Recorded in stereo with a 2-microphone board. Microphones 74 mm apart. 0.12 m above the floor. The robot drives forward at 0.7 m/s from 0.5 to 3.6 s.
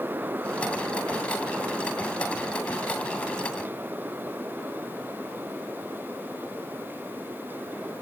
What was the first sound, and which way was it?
Only background noise.